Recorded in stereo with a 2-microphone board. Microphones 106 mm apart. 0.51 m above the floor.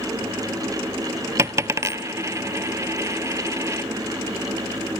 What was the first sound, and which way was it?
A dropped coin, 30° right (ahead or behind).